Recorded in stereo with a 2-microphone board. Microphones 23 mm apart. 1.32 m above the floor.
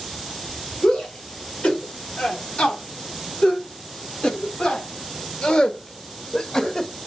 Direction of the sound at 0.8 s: 75° left (ahead or behind).